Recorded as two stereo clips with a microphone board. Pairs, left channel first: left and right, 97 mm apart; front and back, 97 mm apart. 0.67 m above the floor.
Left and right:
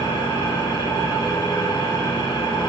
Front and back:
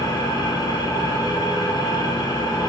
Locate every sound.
0.0 s an engine running: 45° left, 2.5 m